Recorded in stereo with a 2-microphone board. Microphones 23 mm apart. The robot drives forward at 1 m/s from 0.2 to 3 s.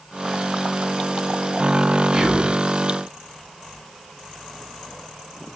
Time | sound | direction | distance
2.1 | whispering | 30° right (ahead or behind) | 1.2 m